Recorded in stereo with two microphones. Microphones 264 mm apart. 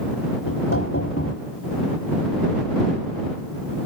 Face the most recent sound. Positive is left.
turn(degrees=65)  # may be behind; listen again after turning